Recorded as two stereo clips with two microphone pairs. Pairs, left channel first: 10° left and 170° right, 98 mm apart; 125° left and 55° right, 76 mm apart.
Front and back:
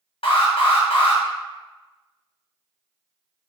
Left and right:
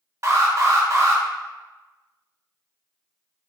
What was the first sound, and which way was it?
An alarm, 5° right.